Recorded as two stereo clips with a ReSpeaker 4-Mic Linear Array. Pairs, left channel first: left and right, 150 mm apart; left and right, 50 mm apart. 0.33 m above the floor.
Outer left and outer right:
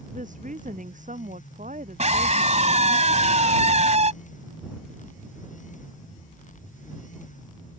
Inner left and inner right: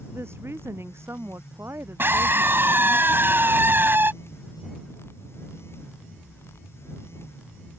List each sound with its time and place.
0.1 s a woman speaking: 60° right (ahead or behind)
2.0 s a scream: 50° right (ahead or behind)